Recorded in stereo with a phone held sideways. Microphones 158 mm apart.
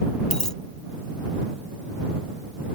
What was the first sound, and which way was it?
A dropped coin, 5° left (ahead or behind).